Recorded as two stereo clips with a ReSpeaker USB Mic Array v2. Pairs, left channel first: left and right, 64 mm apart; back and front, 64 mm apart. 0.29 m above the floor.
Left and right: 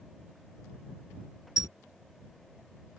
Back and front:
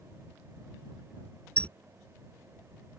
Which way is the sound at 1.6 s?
110° left.